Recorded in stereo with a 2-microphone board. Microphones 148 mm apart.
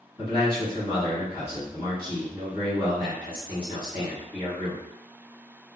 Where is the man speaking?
35° left (ahead or behind), 1.4 m.